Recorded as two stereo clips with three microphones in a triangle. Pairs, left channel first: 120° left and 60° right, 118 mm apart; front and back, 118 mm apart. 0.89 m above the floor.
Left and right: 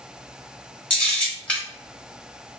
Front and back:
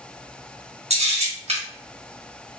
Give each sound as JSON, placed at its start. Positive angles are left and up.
{"t": 0.9, "sound": "a camera shutter", "azimuth_deg": -160, "distance_m": 1.5}